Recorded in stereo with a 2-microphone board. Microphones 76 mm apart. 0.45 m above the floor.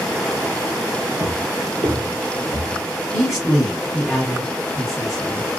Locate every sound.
1.2 s footsteps: 40° right (ahead or behind), 0.8 m; by 2.8 s 55° right (ahead or behind), 1.1 m
3.1 s a man speaking: 5° right (ahead or behind), 1.6 m